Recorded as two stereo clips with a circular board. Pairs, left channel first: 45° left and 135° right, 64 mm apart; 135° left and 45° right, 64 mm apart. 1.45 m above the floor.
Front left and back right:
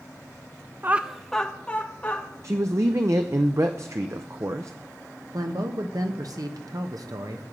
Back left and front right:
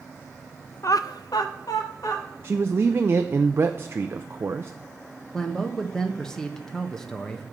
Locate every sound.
0.8 s laughter: 175° left, 0.5 m; by 2.2 s 110° left, 2 m
2.4 s a man speaking: 95° right, 0.5 m
5.3 s a man speaking: 145° right, 1.1 m